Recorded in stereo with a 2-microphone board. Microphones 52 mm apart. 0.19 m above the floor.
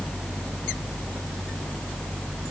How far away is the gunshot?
No gunshot in this recording.